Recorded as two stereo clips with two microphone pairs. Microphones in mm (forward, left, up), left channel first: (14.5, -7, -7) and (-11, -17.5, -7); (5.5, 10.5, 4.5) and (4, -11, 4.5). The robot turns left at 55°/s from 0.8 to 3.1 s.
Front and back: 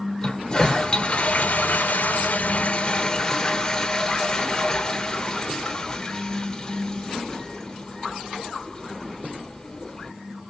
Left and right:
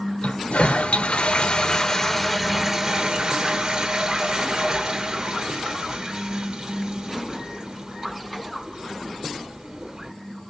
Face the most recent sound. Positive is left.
turn(degrees=-45)